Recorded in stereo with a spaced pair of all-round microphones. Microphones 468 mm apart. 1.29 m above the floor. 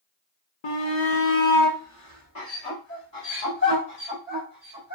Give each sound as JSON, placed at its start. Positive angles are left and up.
{"t": 0.6, "sound": "a shout", "side_deg": 65, "distance_m": 0.5}